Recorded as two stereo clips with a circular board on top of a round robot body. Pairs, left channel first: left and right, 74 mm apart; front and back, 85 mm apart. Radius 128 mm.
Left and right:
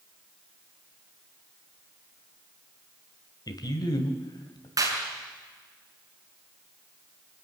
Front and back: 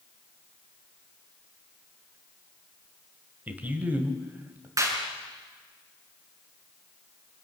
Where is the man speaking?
110° left, 2.5 m.